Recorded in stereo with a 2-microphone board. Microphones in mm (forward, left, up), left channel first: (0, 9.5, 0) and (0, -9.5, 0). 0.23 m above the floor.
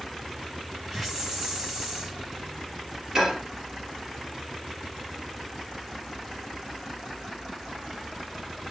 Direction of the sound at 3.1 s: 25° right (ahead or behind).